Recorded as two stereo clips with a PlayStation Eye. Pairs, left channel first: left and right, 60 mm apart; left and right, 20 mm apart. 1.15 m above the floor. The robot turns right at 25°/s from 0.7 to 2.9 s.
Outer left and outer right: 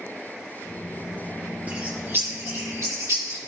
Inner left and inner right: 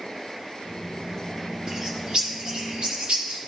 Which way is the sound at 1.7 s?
30° right (ahead or behind).